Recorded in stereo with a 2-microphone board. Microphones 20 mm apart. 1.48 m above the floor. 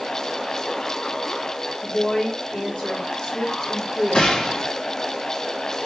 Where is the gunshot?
55° left (ahead or behind), 0.8 m.